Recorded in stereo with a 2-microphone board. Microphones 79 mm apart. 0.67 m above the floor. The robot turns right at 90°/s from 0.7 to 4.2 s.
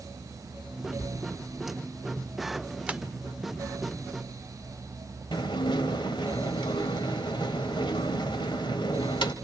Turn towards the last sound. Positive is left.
turn(degrees=75)  # may be behind; listen again after turning